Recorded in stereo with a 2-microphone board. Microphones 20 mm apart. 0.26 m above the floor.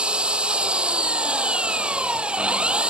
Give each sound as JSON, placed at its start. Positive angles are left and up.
{"t": 0.0, "sound": "an engine running", "side_deg": -70}